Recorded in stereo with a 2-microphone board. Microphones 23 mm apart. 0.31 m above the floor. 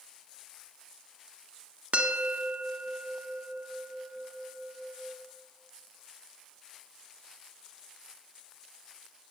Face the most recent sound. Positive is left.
turn(degrees=-65)  # may be behind; listen again after turning